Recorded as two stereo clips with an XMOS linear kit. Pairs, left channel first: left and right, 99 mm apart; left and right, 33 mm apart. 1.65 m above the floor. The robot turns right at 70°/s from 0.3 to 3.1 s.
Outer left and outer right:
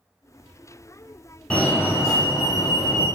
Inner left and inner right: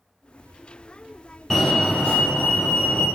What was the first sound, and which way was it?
A fire alarm, 20° left.